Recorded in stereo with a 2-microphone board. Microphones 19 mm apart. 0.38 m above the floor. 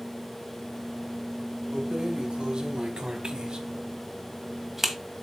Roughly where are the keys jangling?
Right.